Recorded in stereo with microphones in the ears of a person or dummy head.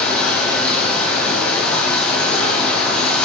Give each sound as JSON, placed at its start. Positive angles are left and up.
{"t": 0.0, "sound": "running water", "side_deg": 5, "distance_m": 1.4}